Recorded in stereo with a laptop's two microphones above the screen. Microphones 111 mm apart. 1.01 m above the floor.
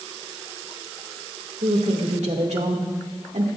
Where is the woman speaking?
80° right, 2 m.